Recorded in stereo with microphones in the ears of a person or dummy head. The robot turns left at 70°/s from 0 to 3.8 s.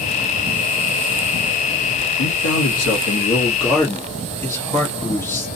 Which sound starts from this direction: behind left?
A man speaking, at 2.2 s.